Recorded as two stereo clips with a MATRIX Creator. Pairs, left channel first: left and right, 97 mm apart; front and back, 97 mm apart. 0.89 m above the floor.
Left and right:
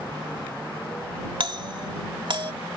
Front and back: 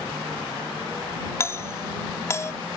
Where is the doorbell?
60° right.